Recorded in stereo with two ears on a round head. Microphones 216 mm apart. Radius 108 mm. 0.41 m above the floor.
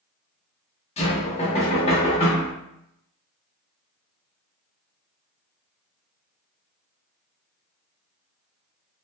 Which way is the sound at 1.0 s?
25° left (ahead or behind).